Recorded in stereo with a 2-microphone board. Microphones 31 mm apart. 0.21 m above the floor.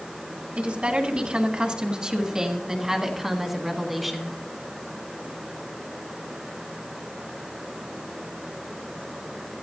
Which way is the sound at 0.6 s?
40° right (ahead or behind).